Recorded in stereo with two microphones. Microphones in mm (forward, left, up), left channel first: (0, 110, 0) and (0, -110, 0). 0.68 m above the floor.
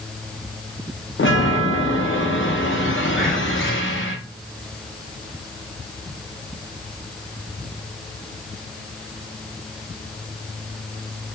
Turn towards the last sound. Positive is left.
turn(degrees=45)  # may be behind; listen again after turning